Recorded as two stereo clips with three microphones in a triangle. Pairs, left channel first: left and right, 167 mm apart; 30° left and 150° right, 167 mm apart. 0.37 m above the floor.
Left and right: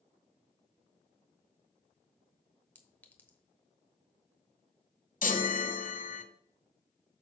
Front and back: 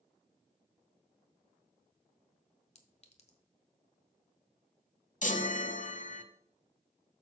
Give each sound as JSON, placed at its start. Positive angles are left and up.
{"t": 2.8, "sound": "a clink", "azimuth_deg": 15, "distance_m": 1.0}
{"t": 5.2, "sound": "a chime", "azimuth_deg": 65, "distance_m": 0.9}